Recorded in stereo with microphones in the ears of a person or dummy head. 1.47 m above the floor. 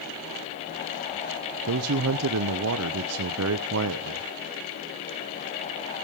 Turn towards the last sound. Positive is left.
turn(degrees=-85)